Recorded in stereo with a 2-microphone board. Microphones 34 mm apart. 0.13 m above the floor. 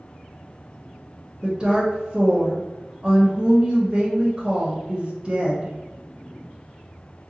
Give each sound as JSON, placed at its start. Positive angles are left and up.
{"t": 1.4, "sound": "a woman speaking", "side_deg": -25, "distance_m": 1.1}